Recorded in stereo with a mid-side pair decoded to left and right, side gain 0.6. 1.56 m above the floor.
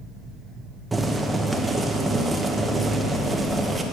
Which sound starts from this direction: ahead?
Boiling, at 0.9 s.